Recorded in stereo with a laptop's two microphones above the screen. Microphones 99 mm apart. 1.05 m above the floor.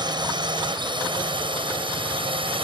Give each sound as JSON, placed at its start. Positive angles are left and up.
{"t": 0.0, "sound": "a drone", "side_deg": -50}